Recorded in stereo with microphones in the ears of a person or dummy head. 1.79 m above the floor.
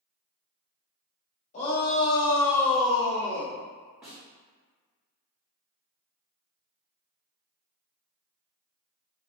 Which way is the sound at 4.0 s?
5° right (ahead or behind).